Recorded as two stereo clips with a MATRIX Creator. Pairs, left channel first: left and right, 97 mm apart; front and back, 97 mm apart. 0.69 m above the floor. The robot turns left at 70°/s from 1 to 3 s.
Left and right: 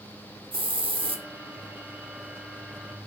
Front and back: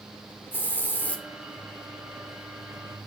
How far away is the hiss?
About 1.5 m.